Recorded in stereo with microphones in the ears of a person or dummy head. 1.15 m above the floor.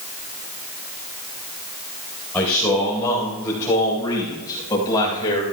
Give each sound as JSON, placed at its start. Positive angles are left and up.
{"t": 2.3, "sound": "a man speaking", "side_deg": 5, "distance_m": 4.5}